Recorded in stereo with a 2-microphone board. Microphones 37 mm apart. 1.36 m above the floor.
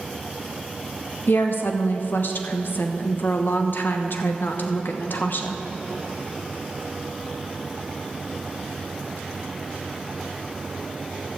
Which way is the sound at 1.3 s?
65° left (ahead or behind).